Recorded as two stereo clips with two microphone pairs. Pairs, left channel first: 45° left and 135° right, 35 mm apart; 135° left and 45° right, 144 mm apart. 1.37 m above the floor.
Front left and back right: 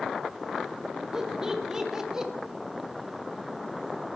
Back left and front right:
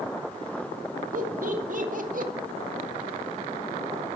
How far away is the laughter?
About 2.5 m.